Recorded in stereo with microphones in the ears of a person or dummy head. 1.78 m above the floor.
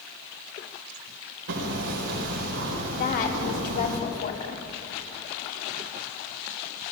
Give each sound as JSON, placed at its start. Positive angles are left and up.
{"t": 1.5, "sound": "hammering", "side_deg": -75, "distance_m": 4.0}
{"t": 3.0, "sound": "a woman speaking", "side_deg": 50, "distance_m": 4.0}